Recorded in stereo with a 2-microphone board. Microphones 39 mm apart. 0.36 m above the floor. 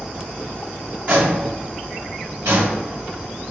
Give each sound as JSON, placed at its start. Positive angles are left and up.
{"t": 1.1, "sound": "footsteps", "side_deg": -30, "distance_m": 1.4}